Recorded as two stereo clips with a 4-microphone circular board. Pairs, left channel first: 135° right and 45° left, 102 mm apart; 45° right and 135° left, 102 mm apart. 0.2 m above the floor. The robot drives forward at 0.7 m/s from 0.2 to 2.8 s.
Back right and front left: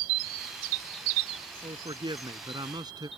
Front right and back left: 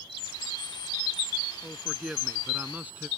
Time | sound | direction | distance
1.6 | a man speaking | 45° left | ?